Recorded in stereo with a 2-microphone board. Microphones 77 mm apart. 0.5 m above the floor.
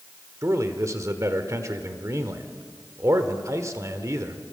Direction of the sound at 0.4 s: 40° right (ahead or behind).